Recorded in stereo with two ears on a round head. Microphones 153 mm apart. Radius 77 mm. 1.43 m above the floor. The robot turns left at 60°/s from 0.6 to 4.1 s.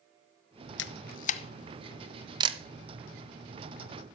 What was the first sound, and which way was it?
A camera shutter, 70° left (ahead or behind).